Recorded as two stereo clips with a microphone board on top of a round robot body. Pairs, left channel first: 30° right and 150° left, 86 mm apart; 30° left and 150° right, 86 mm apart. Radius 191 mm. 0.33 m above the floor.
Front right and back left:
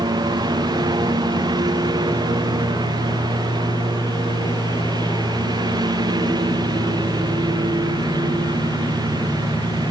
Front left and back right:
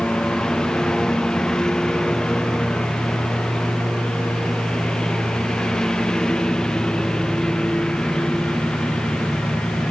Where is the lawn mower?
115° left.